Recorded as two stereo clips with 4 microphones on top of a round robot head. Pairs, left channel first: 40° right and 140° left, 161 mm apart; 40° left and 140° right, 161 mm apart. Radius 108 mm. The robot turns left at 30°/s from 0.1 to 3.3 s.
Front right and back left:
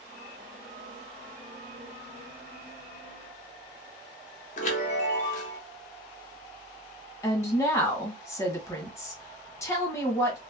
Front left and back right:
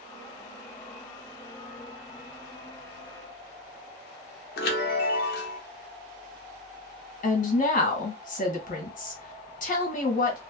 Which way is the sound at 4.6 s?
10° left.